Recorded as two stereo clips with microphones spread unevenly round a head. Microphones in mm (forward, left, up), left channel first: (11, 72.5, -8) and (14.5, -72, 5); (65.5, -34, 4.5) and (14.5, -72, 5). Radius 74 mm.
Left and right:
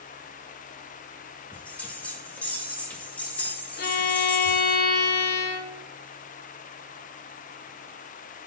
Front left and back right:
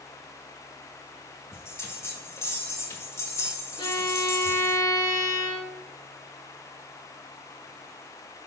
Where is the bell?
10° left, 1.3 m.